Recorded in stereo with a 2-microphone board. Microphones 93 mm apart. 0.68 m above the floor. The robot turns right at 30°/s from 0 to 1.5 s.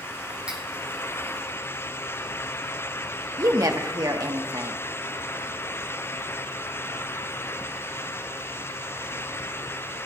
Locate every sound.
0.5 s cutlery clinking: 15° right (ahead or behind), 2.5 m; by 0.6 s 10° right (ahead or behind), 2.5 m
3.4 s a woman speaking: 40° right (ahead or behind), 1.3 m